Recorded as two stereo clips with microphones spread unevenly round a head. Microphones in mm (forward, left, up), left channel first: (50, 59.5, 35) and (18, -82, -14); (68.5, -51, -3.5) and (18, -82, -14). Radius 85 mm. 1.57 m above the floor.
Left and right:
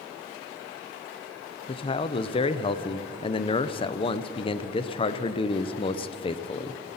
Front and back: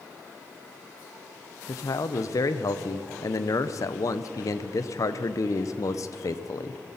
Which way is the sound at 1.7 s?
35° left.